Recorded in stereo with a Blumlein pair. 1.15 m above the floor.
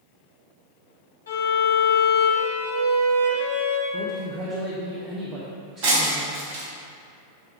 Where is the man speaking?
30° right, 1.3 m.